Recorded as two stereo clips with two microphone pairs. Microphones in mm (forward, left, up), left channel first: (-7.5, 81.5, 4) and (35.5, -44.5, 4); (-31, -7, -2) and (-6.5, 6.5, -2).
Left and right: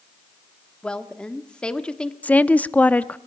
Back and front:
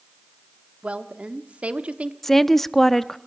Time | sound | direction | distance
0.8 | a woman speaking | 30° left | 1.2 m
2.2 | a woman speaking | 155° left | 0.6 m